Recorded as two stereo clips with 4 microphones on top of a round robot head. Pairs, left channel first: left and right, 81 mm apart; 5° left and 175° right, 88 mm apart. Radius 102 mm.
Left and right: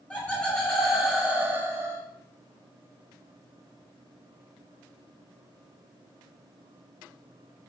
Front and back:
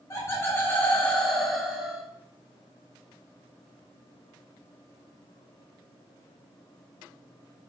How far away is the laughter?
About 1.2 m.